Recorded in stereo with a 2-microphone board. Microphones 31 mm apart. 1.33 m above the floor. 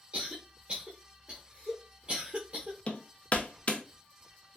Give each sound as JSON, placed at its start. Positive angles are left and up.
{"t": 0.1, "sound": "a cough", "side_deg": -45, "distance_m": 0.9}
{"t": 2.9, "sound": "hammering", "side_deg": 45, "distance_m": 0.6}